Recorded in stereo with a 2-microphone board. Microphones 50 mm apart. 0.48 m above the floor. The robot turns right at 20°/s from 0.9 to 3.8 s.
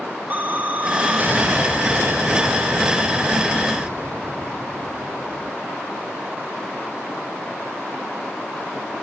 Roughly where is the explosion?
Behind right.